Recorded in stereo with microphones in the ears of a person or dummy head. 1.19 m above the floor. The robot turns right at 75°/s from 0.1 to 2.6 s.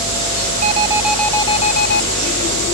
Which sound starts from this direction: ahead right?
An alarm, at 0.6 s.